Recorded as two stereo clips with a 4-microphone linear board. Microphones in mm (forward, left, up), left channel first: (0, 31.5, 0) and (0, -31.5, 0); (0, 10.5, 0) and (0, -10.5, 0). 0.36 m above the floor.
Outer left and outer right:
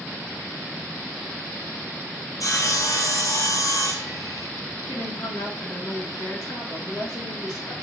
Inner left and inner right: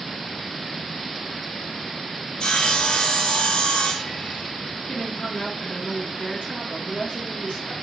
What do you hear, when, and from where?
2.4 s sawing: 60° left (ahead or behind), 1.7 m
4.9 s a woman speaking: 80° left, 4.5 m